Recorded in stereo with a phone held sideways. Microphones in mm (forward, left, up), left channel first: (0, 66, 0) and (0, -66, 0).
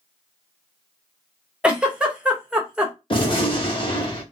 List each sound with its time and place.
1.6 s a giggle: 5° right (ahead or behind), 0.7 m
3.1 s a gunshot: 40° left (ahead or behind), 1.1 m